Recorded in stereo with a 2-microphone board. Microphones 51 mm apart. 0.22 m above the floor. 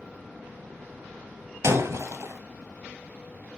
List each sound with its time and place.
1.6 s breaking glass: 80° right, 1.4 m